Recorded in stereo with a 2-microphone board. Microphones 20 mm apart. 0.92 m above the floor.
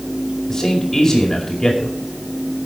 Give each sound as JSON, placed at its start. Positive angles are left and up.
{"t": 0.5, "sound": "a man speaking", "side_deg": 30, "distance_m": 2.5}